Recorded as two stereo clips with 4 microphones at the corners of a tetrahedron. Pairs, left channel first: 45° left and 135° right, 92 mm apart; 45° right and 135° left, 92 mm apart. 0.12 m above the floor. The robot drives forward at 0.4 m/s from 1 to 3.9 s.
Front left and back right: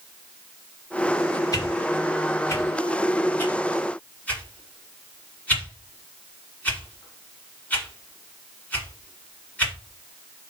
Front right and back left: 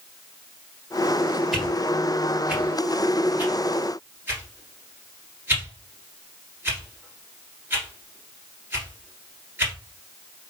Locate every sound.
1.5 s a whoosh: 45° left, 1.8 m; by 9.7 s 100° left, 1.6 m